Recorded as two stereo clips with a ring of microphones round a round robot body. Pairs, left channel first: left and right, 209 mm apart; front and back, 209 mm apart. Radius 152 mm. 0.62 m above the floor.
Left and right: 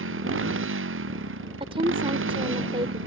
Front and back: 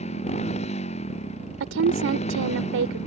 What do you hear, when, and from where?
0.0 s a motorcycle: 70° right
1.6 s a woman speaking: 160° right